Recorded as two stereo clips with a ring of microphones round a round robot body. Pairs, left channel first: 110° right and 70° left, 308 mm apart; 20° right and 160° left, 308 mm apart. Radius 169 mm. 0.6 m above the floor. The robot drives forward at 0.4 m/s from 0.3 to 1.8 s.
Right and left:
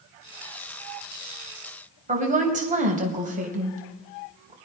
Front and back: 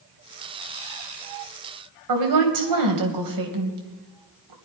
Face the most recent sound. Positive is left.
turn(degrees=135)